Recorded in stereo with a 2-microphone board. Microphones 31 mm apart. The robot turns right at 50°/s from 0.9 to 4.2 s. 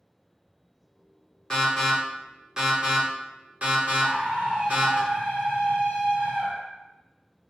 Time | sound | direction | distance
1.5 | an alarm | 15° left (ahead or behind) | 1.4 m
4.0 | a scream | 65° right (ahead or behind) | 1.2 m